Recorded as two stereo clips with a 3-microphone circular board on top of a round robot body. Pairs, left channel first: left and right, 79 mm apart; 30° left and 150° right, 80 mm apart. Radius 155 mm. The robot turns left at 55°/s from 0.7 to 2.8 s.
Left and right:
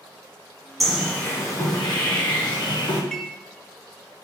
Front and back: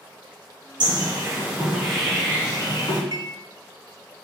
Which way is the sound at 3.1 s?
170° left.